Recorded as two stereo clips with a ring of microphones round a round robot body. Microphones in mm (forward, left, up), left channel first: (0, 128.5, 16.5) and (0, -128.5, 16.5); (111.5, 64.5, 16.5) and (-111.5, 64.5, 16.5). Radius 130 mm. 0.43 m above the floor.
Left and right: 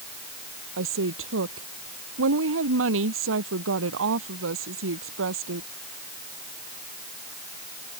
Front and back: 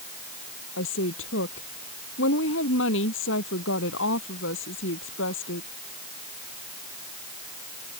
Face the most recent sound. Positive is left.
turn(degrees=-45)